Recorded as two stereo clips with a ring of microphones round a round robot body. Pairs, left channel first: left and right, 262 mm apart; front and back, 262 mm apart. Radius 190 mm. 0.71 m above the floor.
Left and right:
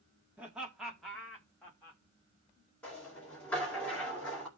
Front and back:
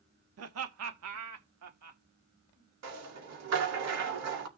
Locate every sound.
0.4 s laughter: 175° right, 1.2 m; by 2.0 s 175° left, 1.9 m
2.8 s a rattle: 175° left, 2 m